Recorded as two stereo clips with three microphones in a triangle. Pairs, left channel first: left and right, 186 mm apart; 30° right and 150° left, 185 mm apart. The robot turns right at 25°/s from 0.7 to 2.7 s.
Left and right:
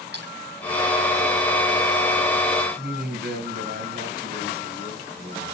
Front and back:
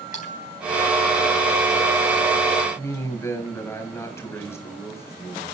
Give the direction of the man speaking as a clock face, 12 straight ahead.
3 o'clock.